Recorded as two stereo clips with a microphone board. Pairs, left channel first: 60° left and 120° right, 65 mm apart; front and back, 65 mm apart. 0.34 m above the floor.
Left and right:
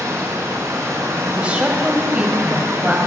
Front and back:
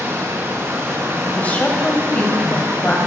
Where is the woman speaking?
60° right, 1.7 m.